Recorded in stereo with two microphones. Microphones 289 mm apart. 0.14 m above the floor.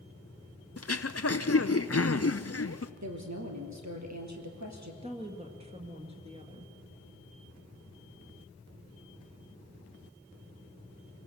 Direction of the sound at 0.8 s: 55° left (ahead or behind).